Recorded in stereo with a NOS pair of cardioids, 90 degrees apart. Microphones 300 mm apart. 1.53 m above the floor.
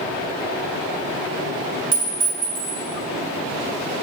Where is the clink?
30° right, 3 m.